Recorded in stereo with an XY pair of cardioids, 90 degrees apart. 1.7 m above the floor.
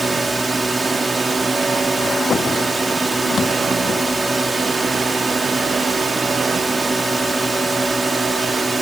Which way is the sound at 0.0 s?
20° right.